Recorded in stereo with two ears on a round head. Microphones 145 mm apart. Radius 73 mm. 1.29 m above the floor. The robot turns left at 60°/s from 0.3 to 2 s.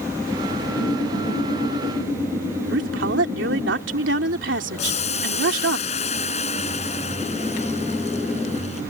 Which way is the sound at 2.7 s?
80° right.